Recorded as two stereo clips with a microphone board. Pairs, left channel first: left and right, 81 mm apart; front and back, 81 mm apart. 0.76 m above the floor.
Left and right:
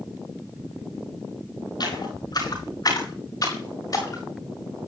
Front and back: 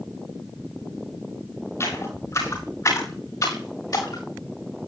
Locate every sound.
1.8 s footsteps: 55° left, 5.5 m; by 4.2 s 40° left, 6.5 m